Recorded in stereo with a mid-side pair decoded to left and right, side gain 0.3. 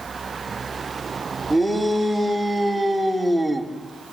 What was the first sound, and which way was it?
A shout, 15° right.